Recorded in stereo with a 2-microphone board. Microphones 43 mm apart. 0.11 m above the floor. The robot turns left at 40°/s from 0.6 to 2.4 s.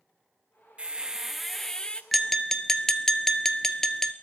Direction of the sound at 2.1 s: Centre (ahead or behind).